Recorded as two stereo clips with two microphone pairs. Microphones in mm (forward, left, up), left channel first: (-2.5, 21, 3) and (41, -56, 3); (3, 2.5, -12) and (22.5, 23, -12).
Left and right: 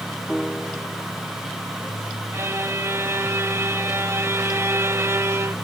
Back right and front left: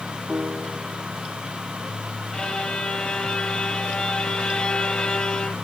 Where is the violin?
100° right.